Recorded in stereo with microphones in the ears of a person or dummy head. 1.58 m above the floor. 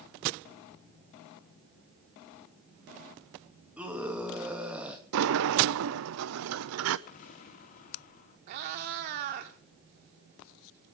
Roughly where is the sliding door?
Right.